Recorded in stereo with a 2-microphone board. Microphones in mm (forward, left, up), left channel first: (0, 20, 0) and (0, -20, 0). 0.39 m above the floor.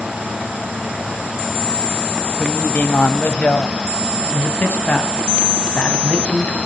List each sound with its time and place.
2.4 s a woman speaking: 50° left (ahead or behind), 1.8 m
4.2 s a man speaking: 40° left (ahead or behind), 3 m